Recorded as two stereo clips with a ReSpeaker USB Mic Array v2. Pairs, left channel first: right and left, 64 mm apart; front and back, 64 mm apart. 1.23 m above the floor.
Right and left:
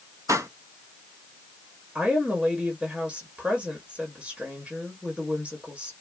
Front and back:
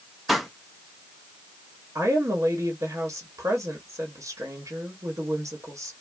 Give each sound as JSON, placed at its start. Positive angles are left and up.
{"t": 0.3, "sound": "a pop", "azimuth_deg": 90, "distance_m": 0.7}
{"t": 1.9, "sound": "a woman speaking", "azimuth_deg": 165, "distance_m": 1.3}